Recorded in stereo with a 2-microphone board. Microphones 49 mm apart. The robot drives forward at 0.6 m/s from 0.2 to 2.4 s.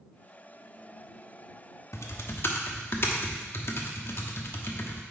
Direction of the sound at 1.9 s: 70° left (ahead or behind).